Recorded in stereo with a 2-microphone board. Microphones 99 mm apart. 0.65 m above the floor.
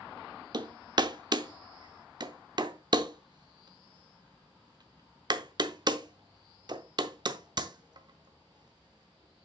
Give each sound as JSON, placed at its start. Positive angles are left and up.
{"t": 0.5, "sound": "hammering", "side_deg": -45, "distance_m": 0.6}